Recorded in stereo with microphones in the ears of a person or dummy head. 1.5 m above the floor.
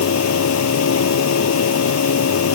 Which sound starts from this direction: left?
A machine running, at 0.0 s.